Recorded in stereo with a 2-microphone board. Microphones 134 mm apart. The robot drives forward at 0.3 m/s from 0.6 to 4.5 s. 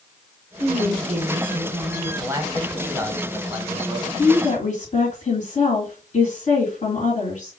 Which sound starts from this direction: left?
A woman speaking, at 4.2 s.